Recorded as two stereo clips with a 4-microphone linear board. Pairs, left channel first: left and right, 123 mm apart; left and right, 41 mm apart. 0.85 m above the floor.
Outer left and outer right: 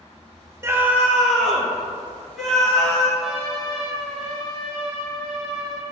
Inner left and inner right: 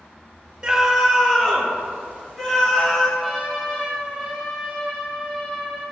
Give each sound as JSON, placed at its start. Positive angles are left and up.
{"t": 0.6, "sound": "a scream", "side_deg": -20, "distance_m": 0.5}
{"t": 3.2, "sound": "a trumpet", "side_deg": 0, "distance_m": 1.9}